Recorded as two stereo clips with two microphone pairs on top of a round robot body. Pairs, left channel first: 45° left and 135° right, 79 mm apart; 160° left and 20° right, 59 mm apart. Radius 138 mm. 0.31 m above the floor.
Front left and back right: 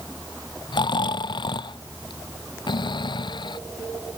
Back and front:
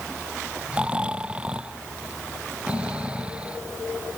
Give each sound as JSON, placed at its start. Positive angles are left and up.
{"t": 0.7, "sound": "snoring", "azimuth_deg": 55}